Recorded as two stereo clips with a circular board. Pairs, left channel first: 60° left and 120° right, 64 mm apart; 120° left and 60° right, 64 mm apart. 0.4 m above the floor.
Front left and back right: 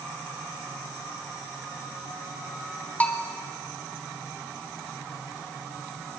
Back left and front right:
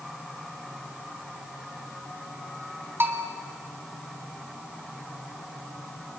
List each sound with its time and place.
3.0 s a bell: 5° right, 1.7 m